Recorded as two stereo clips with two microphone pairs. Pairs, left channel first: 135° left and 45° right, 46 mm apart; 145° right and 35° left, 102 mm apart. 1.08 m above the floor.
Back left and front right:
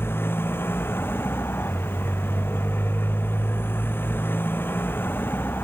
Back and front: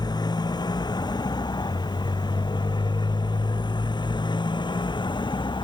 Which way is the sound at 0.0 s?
170° left.